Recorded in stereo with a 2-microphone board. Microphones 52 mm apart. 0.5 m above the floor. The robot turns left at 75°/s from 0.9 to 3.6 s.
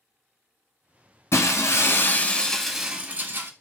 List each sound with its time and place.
1.3 s breaking glass: 105° left, 0.6 m; by 3.5 s 60° right, 0.6 m